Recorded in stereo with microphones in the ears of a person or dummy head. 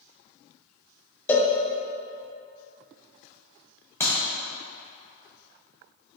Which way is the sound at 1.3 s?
10° left (ahead or behind).